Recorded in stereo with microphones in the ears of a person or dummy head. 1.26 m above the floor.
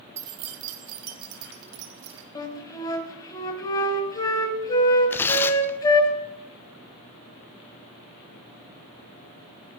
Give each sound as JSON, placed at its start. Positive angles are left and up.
{"t": 0.2, "sound": "keys jangling", "side_deg": -15, "distance_m": 0.7}
{"t": 2.4, "sound": "a flute", "side_deg": 20, "distance_m": 1.5}
{"t": 5.1, "sound": "tearing paper", "side_deg": 10, "distance_m": 0.8}